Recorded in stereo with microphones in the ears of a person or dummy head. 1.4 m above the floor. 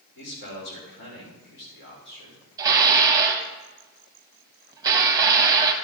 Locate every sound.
0.1 s a man speaking: 60° left (ahead or behind), 3.5 m
2.6 s dishes clattering: 20° right (ahead or behind), 1.2 m